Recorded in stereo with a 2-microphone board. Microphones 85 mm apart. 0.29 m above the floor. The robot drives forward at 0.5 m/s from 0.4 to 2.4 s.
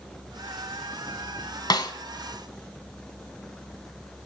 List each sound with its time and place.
1.7 s a snare drum: 55° left (ahead or behind), 0.9 m; by 1.9 s 60° left (ahead or behind), 0.8 m